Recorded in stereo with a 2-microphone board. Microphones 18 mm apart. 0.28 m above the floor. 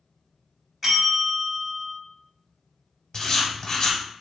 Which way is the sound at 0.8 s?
20° right (ahead or behind).